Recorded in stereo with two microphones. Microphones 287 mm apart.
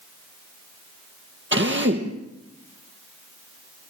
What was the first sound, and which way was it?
A drill, 40° right (ahead or behind).